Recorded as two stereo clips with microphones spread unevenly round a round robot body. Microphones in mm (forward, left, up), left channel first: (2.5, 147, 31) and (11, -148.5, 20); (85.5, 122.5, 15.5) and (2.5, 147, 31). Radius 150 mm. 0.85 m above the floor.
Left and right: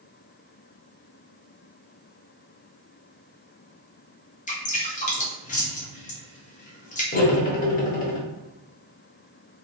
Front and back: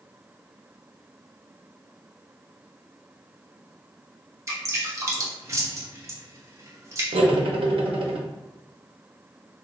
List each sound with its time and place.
4.5 s dripping: 135° left, 1.0 m
7.1 s cutlery clinking: 155° left, 0.6 m